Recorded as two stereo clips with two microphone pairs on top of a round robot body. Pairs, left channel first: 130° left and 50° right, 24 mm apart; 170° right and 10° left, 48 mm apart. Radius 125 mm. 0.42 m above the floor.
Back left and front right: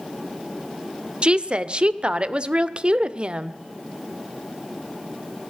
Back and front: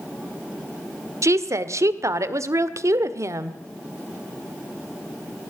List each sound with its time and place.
1.2 s a woman speaking: 10° right, 1.6 m